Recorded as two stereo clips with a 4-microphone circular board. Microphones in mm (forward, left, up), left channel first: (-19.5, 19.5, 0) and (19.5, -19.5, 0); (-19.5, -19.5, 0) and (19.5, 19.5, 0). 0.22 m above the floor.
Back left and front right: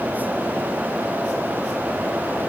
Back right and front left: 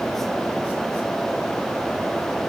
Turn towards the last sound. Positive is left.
No sound to turn to.